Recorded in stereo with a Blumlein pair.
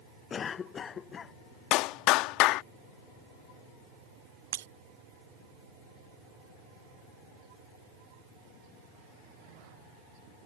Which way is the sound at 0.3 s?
20° left.